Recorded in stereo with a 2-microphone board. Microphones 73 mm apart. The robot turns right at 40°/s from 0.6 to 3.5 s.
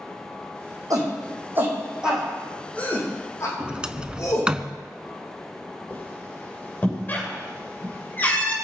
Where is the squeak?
25° left (ahead or behind), 6 m.